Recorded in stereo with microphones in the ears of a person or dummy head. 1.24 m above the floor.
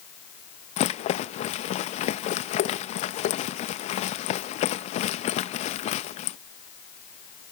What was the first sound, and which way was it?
A rattle, 35° left (ahead or behind).